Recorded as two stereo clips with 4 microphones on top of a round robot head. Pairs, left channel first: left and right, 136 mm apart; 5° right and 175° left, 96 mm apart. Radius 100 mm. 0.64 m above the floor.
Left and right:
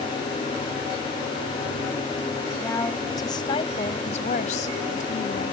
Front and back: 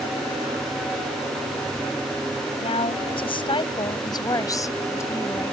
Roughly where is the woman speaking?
Ahead.